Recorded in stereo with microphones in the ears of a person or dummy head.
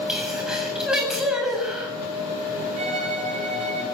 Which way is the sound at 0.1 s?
5° right (ahead or behind).